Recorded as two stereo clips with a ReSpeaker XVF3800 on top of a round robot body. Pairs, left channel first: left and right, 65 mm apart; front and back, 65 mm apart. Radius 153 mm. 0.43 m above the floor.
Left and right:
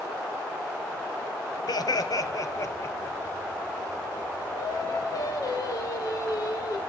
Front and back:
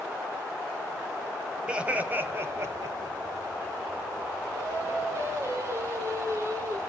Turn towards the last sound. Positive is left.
turn(degrees=130)